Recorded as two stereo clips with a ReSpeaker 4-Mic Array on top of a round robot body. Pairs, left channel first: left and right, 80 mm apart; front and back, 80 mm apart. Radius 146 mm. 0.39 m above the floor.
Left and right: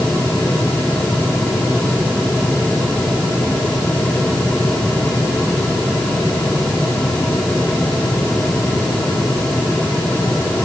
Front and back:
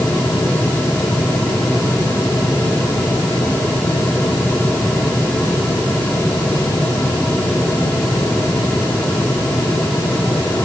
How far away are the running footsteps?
No running footsteps in this recording.